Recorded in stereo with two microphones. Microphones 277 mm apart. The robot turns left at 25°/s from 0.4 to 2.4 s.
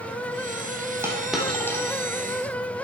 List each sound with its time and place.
1.0 s a dropped coin: 10° right (ahead or behind), 3 m; by 1.9 s 10° left (ahead or behind), 3 m